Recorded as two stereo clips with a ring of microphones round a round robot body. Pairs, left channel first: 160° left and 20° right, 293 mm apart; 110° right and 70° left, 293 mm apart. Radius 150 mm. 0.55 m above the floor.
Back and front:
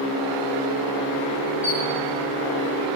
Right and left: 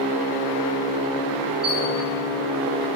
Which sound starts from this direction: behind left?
A squeak, at 1.6 s.